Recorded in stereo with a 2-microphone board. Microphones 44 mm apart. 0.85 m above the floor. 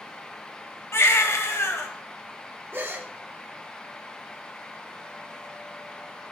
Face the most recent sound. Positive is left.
turn(degrees=-50)  # may be behind; listen again after turning